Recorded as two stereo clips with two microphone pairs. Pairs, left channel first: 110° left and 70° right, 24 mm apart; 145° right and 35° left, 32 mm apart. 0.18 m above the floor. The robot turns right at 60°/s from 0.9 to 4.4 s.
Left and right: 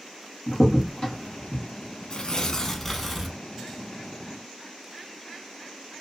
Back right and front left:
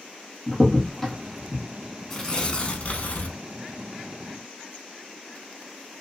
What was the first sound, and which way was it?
A crack, 135° left.